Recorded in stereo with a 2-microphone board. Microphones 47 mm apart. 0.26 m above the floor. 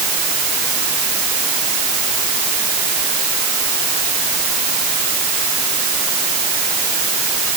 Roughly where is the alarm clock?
No alarm clock in this recording.